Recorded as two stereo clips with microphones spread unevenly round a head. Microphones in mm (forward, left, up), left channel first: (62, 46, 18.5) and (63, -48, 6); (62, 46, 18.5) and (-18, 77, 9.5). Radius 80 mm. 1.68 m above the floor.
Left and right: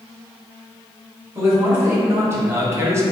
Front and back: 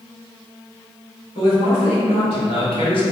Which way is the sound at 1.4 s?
25° right.